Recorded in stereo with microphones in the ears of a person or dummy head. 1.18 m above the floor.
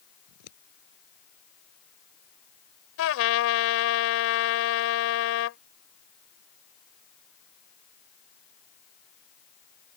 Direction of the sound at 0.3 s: 85° left.